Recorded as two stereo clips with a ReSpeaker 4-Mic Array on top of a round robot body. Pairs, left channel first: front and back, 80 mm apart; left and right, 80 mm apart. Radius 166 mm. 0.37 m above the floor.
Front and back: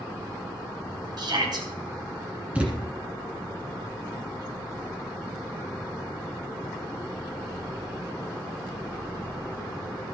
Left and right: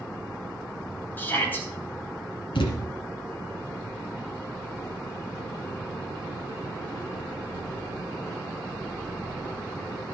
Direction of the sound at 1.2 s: 155° left.